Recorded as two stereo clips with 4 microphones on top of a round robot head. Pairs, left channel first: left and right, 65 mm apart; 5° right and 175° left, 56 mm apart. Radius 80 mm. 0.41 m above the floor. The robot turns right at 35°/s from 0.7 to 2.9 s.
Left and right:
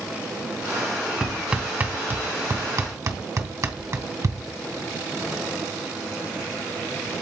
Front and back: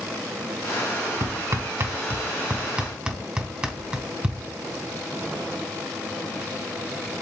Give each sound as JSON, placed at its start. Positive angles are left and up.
{"t": 1.2, "sound": "hammering", "azimuth_deg": -170, "distance_m": 2.0}